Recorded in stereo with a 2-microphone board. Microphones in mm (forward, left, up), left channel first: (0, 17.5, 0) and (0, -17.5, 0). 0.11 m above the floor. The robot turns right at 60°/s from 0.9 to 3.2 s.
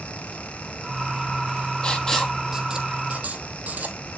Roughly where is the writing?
Left.